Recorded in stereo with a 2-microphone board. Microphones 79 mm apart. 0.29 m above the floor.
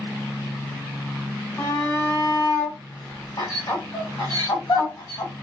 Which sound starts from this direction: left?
A shout, at 1.6 s.